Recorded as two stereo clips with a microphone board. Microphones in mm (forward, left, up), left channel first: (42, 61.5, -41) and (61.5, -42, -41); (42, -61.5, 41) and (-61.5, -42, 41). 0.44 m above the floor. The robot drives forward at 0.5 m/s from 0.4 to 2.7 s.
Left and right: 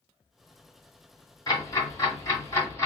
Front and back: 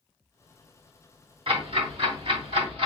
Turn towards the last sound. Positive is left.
turn(degrees=160)